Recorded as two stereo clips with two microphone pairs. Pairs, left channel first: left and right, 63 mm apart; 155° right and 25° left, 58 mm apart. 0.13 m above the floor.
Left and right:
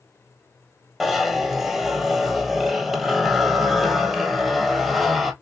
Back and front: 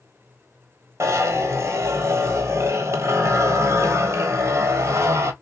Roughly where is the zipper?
Ahead.